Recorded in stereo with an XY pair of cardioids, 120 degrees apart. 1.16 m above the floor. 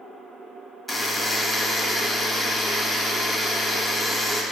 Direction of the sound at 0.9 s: Straight ahead.